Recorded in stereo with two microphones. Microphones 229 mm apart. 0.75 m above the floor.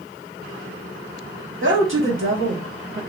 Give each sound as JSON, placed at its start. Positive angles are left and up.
{"t": 1.6, "sound": "a woman speaking", "side_deg": -60, "distance_m": 1.6}